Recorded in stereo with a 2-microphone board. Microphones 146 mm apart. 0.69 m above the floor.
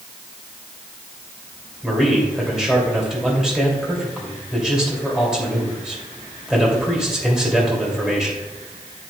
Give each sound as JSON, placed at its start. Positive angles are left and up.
{"t": 1.8, "sound": "a man speaking", "side_deg": -5, "distance_m": 3.0}